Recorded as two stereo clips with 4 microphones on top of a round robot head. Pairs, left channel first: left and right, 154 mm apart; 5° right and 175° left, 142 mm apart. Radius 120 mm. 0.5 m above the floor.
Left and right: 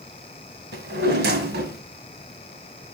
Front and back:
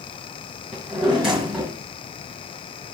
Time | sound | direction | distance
0.7 | a drawer | 100° right | 1.5 m